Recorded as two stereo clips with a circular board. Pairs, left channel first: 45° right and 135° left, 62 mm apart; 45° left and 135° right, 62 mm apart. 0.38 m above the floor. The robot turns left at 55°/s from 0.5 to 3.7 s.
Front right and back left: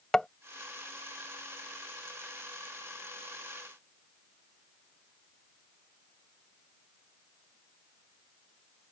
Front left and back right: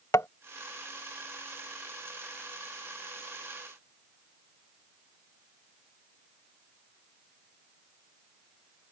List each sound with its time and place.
0.1 s tapping: 35° left